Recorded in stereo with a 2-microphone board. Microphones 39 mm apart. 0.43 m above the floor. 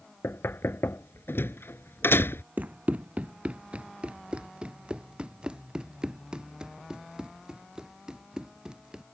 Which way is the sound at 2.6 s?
45° right (ahead or behind).